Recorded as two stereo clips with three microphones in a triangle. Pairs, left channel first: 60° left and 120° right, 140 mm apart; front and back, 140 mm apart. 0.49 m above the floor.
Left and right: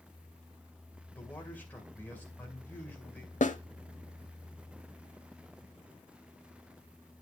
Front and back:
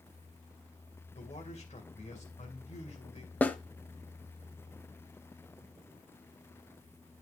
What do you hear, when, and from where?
1.1 s a man speaking: 15° right, 2.5 m
3.4 s a snare drum: 80° left, 0.8 m